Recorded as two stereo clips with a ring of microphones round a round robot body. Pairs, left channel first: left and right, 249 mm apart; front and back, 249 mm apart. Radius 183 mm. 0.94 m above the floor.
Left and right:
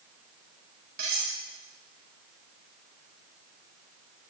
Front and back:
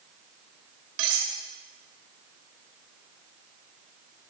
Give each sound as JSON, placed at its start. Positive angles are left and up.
{"t": 1.0, "sound": "cutlery clinking", "azimuth_deg": -155, "distance_m": 2.0}